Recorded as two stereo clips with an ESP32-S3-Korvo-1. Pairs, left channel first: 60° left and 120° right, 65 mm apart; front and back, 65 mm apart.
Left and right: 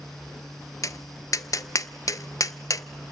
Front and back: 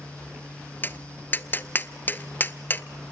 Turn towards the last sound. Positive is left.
turn(degrees=55)